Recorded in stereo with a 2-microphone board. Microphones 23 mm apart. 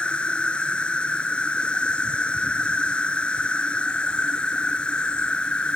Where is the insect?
50° left (ahead or behind).